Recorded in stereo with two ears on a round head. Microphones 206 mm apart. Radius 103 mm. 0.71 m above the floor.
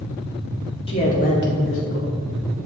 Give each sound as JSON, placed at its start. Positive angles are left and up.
{"t": 0.9, "sound": "a man speaking", "side_deg": 25, "distance_m": 1.7}